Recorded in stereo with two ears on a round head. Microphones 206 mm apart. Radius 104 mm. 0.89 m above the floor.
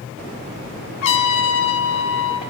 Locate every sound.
1.0 s a trumpet: 65° left (ahead or behind), 1.8 m